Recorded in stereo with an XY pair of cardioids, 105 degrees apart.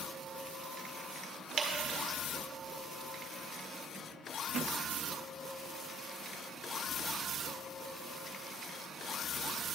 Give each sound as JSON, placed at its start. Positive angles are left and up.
{"t": 1.6, "sound": "dripping", "azimuth_deg": -50, "distance_m": 1.6}